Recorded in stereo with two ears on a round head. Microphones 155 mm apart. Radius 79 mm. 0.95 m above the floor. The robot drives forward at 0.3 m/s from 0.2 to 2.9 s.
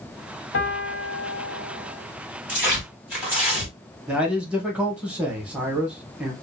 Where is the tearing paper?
10° right (ahead or behind), 1.9 m.